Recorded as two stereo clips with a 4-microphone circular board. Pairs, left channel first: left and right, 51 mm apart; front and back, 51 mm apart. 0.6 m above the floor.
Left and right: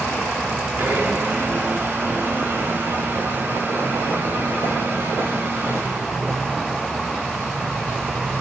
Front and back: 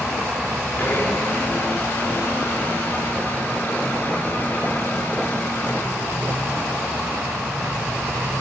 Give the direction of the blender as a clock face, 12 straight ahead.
2 o'clock.